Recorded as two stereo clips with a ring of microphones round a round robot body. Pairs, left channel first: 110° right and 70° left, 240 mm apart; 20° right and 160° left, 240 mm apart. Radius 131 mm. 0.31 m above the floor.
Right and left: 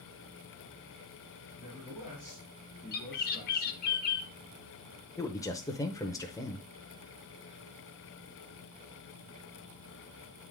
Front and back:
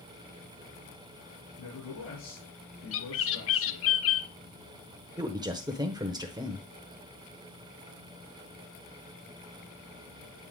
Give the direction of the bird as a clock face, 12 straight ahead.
2 o'clock.